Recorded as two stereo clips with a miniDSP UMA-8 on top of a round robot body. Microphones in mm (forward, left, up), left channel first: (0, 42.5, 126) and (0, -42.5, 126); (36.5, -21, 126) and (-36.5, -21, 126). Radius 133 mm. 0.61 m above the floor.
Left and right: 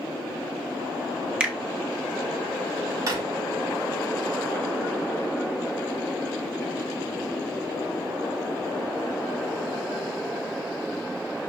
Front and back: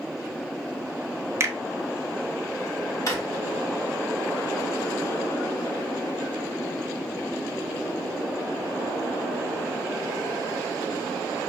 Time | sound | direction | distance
1.4 | a finger snap | 165° right | 1.2 m
3.1 | a drawer | 40° right | 1.5 m